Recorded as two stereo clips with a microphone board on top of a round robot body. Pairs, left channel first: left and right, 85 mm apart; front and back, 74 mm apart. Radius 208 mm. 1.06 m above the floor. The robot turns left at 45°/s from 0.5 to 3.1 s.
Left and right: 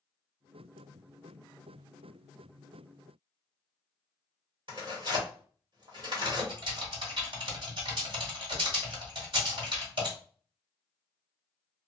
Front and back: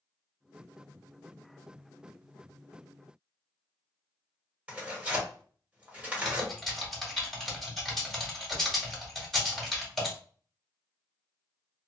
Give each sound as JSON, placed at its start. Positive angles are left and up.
{"t": 4.7, "sound": "tearing paper", "azimuth_deg": -105, "distance_m": 1.5}
{"t": 6.2, "sound": "typing on a keyboard", "azimuth_deg": -85, "distance_m": 1.7}